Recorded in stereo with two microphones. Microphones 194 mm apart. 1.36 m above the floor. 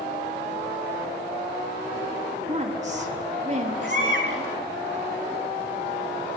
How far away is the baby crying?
About 7.5 m.